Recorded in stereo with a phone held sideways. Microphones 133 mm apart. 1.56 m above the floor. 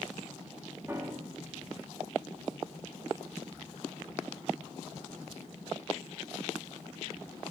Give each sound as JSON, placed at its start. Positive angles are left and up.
{"t": 0.9, "sound": "a piano", "side_deg": -20, "distance_m": 1.4}